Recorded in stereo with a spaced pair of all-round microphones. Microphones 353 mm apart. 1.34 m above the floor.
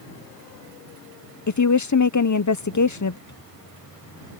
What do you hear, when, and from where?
1.5 s a woman speaking: 55° left (ahead or behind)
3.3 s a microwave: 50° left (ahead or behind)